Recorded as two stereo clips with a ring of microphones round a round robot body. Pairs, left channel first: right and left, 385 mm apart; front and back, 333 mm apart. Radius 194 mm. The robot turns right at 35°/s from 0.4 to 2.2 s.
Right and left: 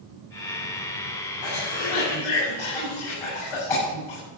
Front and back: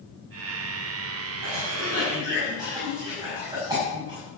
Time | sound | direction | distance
1.4 | a cough | 125° right | 6.5 m